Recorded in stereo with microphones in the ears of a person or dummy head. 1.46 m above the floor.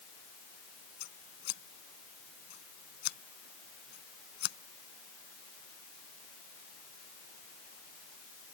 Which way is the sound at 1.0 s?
50° left (ahead or behind).